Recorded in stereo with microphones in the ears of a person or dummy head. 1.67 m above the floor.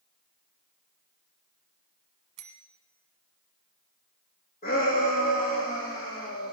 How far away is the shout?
About 3 m.